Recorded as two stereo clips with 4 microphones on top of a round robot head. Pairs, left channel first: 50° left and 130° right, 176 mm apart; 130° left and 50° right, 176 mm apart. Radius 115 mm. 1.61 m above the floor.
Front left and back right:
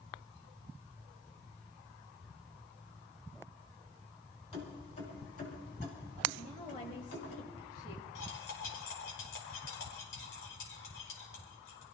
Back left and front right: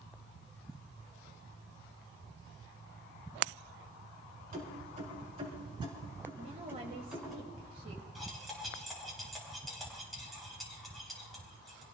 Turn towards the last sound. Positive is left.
turn(degrees=40)